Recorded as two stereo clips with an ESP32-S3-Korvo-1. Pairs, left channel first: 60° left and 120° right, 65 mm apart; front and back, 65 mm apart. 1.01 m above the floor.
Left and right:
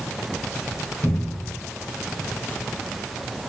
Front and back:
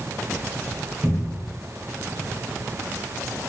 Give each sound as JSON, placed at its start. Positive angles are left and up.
{"t": 1.0, "sound": "a cupboard door", "azimuth_deg": 120, "distance_m": 1.5}